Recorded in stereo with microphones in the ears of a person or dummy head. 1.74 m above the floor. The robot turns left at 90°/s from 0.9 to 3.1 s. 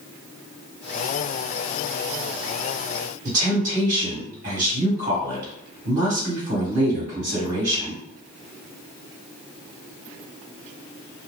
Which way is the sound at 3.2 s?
40° right (ahead or behind).